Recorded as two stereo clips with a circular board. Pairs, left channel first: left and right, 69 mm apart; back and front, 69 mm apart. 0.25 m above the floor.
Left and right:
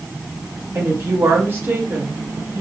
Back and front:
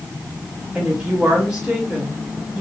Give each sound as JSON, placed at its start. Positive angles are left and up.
{"t": 0.8, "sound": "a woman speaking", "azimuth_deg": -70, "distance_m": 1.3}